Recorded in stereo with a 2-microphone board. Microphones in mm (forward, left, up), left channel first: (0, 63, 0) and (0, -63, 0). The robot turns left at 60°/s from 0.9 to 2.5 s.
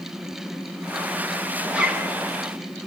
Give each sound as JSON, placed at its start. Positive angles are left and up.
{"t": 1.7, "sound": "a zipper", "side_deg": -5, "distance_m": 0.9}